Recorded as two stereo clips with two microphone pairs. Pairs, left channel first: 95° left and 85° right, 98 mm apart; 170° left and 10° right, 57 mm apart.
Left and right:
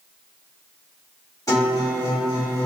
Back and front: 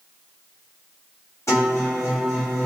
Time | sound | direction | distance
1.5 | a guitar | 145° left | 1.6 m